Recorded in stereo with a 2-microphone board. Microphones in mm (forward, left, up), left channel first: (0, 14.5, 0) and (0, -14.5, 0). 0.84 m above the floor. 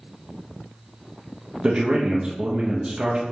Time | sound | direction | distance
1.6 | a man speaking | 40° right (ahead or behind) | 0.6 m